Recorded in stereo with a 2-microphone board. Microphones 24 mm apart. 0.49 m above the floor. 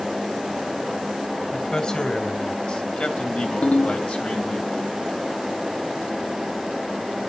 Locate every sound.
1.5 s a man speaking: 35° left (ahead or behind), 3 m; by 4.6 s 65° left (ahead or behind), 3 m
3.6 s a ringtone: 75° left (ahead or behind), 1.7 m